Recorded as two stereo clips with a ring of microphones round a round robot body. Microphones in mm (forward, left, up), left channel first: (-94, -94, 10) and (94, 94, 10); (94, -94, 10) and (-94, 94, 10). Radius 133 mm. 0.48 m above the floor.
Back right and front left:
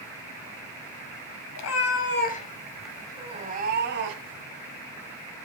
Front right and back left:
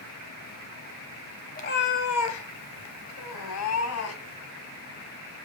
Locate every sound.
1.6 s a cat meowing: 105° right, 1.2 m; by 4.4 s straight ahead, 1.8 m